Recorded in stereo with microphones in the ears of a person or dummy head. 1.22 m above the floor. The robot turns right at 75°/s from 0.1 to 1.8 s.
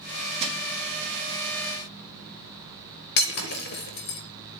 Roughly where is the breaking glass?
Left.